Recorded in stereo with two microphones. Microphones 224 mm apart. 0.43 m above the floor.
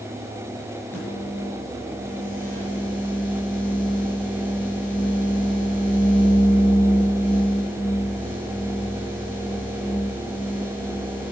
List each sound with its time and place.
0.9 s a microwave: 10° left (ahead or behind), 7.5 m